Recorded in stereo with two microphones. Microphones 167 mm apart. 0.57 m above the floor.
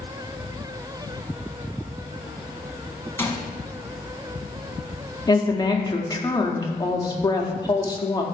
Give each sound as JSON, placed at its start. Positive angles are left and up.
{"t": 3.2, "sound": "a gunshot", "side_deg": 15, "distance_m": 0.8}
{"t": 5.3, "sound": "a woman speaking", "side_deg": 25, "distance_m": 0.6}